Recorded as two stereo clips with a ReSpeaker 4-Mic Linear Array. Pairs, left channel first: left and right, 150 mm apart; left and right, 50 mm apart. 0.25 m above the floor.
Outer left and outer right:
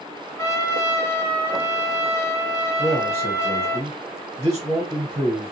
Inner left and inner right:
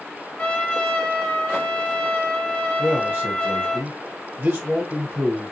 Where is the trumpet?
20° left (ahead or behind), 1.2 m.